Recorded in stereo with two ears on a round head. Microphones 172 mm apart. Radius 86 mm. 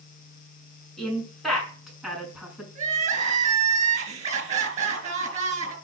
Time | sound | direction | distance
1.0 | a woman speaking | 5° left (ahead or behind) | 6.5 m
2.8 | crying | 40° right (ahead or behind) | 3.5 m